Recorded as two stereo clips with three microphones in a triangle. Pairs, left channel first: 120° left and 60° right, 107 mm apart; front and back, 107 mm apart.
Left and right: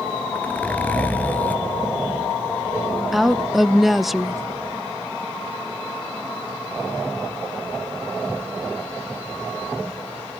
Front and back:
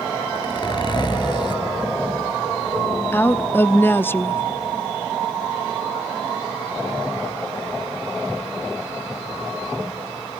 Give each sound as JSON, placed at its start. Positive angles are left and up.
{"t": 0.3, "sound": "a zipper", "azimuth_deg": 45, "distance_m": 1.8}
{"t": 3.1, "sound": "a woman speaking", "azimuth_deg": 25, "distance_m": 0.6}